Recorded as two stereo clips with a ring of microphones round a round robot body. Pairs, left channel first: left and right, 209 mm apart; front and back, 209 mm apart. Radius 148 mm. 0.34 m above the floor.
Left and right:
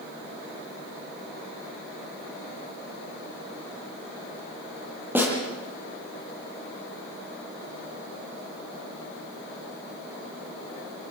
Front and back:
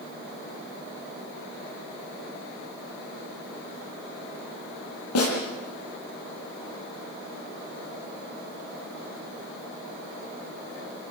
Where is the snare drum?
10° right, 9.5 m.